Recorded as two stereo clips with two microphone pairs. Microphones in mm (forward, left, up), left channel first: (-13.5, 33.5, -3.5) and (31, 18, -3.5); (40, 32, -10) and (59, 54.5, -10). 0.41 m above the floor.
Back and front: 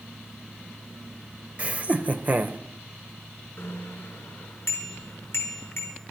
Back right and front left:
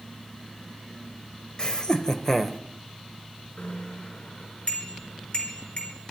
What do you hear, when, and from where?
1.6 s laughter: 70° right, 1.4 m; by 2.6 s 45° right, 1.1 m
3.6 s a bicycle bell: 165° right, 3.5 m